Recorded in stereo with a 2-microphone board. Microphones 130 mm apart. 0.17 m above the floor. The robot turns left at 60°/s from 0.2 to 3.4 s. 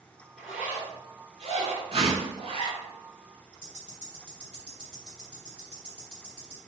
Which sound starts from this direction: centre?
A zipper, at 0.4 s.